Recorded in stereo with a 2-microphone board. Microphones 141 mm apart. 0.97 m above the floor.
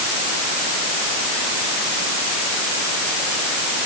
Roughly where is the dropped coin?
No dropped coin in this recording.